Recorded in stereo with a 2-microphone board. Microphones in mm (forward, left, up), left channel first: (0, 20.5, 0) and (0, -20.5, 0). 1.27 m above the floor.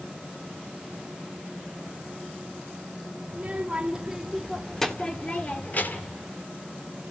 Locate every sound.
3.3 s a child speaking: 30° right (ahead or behind), 3 m; by 6.2 s 55° left (ahead or behind), 2.5 m